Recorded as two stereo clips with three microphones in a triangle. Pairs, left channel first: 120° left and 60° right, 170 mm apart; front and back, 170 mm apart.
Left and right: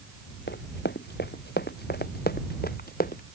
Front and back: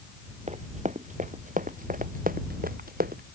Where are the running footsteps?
130° left; by 3.2 s 150° left.